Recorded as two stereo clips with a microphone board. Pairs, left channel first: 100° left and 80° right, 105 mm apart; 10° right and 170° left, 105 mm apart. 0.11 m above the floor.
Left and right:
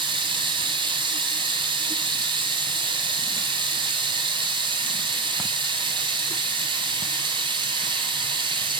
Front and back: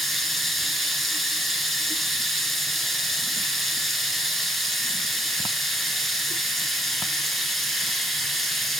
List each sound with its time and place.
0.0 s running water: 100° right, 2 m